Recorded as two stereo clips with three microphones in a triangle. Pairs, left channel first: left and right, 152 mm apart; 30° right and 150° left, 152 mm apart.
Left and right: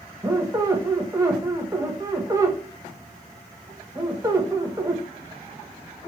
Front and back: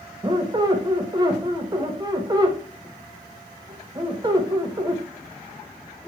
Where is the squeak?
155° right, 0.5 m.